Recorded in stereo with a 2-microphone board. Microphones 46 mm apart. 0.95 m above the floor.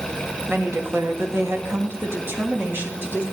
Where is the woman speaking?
50° right (ahead or behind), 1.5 m; by 3.2 s 40° right (ahead or behind), 2 m.